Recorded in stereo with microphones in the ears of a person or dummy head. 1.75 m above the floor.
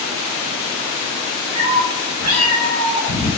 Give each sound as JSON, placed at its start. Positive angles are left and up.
{"t": 1.6, "sound": "a cat meowing", "side_deg": -15, "distance_m": 1.9}